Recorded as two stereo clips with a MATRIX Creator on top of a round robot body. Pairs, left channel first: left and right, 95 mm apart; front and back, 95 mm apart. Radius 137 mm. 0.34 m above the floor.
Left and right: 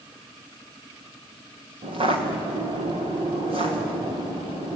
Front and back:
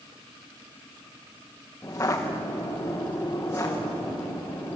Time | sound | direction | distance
1.8 | footsteps | 65° right | 4 m